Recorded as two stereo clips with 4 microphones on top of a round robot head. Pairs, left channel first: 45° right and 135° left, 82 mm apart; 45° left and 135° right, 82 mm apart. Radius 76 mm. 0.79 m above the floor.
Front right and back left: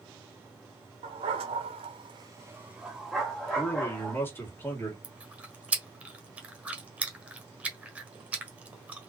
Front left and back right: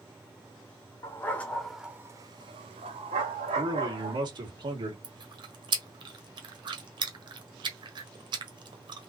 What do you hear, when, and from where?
1.0 s a dog barking: 110° left, 1.3 m; by 4.2 s 125° right, 2.5 m
3.5 s a man speaking: 110° right, 2 m
5.0 s chewing: 150° right, 1.4 m